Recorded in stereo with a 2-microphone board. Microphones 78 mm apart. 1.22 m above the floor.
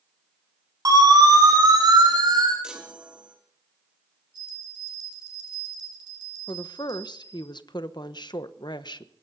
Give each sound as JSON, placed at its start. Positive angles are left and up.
{"t": 0.8, "sound": "a siren", "side_deg": -45, "distance_m": 8.5}
{"t": 2.6, "sound": "a chime", "side_deg": -10, "distance_m": 3.0}
{"t": 4.3, "sound": "a bell", "side_deg": -60, "distance_m": 5.5}
{"t": 6.5, "sound": "a woman speaking", "side_deg": 65, "distance_m": 0.9}